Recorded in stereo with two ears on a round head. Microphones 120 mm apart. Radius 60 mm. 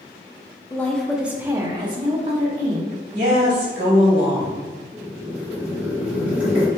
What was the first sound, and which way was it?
A woman speaking, 20° left (ahead or behind).